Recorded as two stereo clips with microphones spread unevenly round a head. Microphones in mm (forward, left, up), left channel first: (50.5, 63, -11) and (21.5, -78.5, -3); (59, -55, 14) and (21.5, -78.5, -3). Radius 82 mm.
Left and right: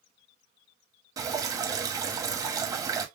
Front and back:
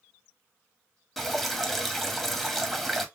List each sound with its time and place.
1.2 s dripping: 40° right, 1.5 m